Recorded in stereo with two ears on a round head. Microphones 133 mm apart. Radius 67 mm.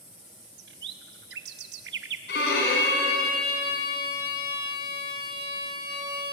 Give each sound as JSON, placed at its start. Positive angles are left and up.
{"t": 0.6, "sound": "a bird", "side_deg": -85, "distance_m": 1.0}
{"t": 2.3, "sound": "a violin", "side_deg": 75, "distance_m": 4.5}